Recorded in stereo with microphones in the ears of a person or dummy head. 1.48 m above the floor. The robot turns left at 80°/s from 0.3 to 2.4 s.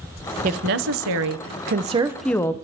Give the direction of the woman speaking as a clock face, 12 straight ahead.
1 o'clock.